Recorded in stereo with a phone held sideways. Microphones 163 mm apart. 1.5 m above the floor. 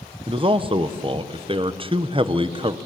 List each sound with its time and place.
0.3 s a man speaking: 30° right (ahead or behind), 1.0 m